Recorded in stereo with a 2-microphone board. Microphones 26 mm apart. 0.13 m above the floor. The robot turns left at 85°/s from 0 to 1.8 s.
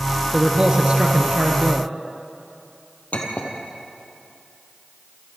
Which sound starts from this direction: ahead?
A man speaking, at 0.3 s.